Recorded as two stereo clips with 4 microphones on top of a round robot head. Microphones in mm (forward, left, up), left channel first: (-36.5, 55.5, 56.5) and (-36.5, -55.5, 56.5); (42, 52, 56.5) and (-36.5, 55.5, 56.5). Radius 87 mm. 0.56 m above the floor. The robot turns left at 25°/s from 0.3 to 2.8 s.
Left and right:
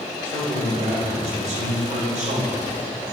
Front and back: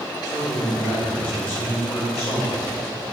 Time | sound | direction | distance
0.2 | a man speaking | 45° right | 3 m